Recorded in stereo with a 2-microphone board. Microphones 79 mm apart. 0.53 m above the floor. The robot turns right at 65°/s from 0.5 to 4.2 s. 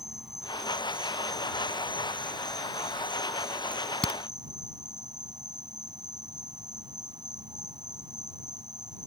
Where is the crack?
10° right (ahead or behind); by 4.2 s 20° left (ahead or behind).